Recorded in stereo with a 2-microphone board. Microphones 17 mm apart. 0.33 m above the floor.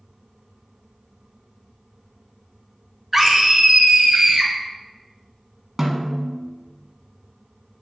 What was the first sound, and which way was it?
A scream, 10° right (ahead or behind).